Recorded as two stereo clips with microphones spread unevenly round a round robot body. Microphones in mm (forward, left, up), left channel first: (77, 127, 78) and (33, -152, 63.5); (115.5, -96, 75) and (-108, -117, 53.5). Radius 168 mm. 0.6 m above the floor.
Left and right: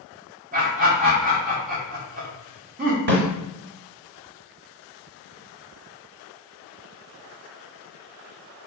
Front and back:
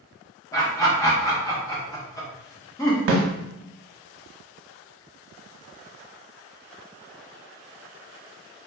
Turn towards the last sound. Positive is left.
turn(degrees=-145)